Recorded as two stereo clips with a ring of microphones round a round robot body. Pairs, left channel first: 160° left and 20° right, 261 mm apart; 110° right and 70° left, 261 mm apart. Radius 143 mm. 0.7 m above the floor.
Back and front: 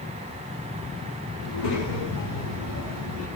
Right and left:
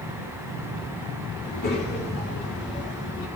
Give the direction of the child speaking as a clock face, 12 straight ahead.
6 o'clock.